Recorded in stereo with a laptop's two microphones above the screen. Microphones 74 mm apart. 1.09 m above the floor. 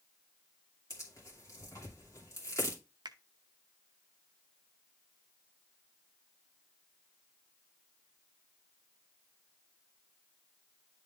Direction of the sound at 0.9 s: 45° left (ahead or behind).